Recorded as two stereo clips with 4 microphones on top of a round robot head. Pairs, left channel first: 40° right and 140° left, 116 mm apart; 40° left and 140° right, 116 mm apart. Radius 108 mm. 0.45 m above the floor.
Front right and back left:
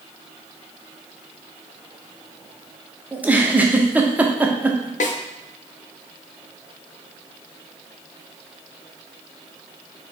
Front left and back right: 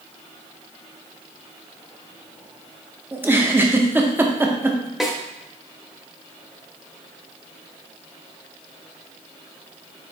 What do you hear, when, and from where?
3.1 s a giggle: 170° right, 0.8 m
5.0 s a snare drum: 50° right, 0.6 m